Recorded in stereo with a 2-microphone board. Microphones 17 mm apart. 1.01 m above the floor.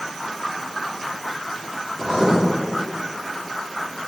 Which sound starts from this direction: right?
Writing, at 2.0 s.